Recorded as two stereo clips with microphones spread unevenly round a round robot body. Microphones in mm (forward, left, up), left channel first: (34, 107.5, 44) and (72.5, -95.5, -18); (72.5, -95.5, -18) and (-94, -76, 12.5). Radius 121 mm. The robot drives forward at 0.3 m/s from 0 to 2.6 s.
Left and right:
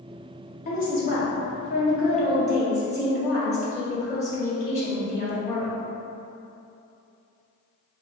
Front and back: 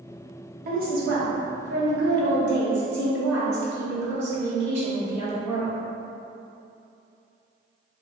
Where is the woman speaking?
155° left, 0.7 m; by 5.7 s 170° left, 1.1 m.